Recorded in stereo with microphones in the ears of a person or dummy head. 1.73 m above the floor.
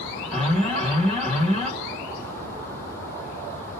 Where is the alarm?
5° left (ahead or behind), 1.9 m.